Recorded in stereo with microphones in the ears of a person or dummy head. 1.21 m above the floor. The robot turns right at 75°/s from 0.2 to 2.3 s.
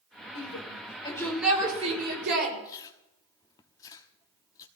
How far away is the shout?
About 6 m.